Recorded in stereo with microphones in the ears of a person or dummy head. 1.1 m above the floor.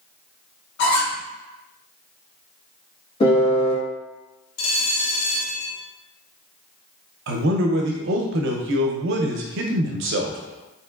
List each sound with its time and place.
0.8 s a squeak: 65° left (ahead or behind), 1.3 m
3.2 s a piano: 30° left (ahead or behind), 1.9 m
4.6 s a bell: 85° left, 0.7 m
7.3 s a man speaking: 60° right (ahead or behind), 0.6 m